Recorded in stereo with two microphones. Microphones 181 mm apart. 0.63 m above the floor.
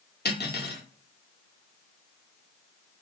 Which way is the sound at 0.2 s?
65° left (ahead or behind).